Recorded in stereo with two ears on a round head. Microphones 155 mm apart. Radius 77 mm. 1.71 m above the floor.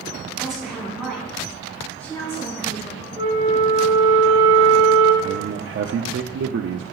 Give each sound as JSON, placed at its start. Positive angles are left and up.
{"t": 0.4, "sound": "a woman speaking", "side_deg": -5, "distance_m": 4.5}
{"t": 3.2, "sound": "a flute", "side_deg": -30, "distance_m": 4.0}
{"t": 5.2, "sound": "a man speaking", "side_deg": -65, "distance_m": 0.5}